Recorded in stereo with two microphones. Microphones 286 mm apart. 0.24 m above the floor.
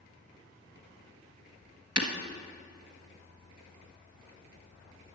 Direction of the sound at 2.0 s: 65° right (ahead or behind).